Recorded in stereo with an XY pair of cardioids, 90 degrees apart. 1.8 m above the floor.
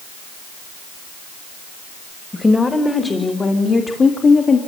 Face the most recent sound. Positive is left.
turn(degrees=55)